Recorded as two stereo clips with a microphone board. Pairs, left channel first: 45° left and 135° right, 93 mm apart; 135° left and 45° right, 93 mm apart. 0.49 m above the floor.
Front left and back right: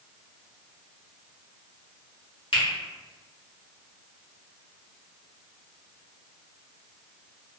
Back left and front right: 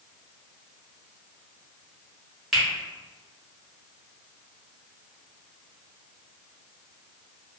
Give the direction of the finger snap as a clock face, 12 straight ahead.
10 o'clock.